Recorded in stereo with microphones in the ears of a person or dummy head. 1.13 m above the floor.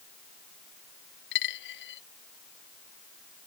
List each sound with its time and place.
1.3 s a dropped coin: 60° left (ahead or behind)